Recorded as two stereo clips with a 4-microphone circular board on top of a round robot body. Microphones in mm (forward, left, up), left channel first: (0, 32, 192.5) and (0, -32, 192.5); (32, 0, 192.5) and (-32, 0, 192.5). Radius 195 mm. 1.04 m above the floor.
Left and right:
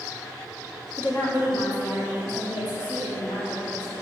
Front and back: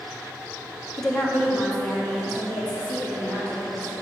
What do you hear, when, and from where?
1.0 s a woman speaking: 80° left, 1.4 m; by 3.9 s 75° left, 4.5 m